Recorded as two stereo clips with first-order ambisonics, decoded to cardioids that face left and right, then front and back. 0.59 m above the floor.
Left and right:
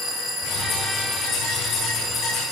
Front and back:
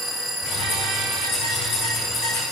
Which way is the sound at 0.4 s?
45° left.